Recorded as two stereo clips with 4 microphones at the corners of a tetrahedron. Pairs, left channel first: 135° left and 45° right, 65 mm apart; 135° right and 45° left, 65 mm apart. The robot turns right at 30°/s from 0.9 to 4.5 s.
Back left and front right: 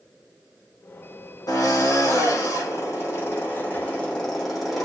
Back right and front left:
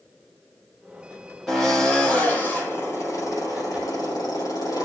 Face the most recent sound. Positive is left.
turn(degrees=-140)